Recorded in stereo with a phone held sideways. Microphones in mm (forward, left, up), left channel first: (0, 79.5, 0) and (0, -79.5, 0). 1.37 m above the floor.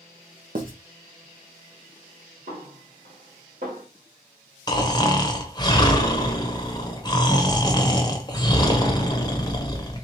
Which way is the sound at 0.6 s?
65° right (ahead or behind).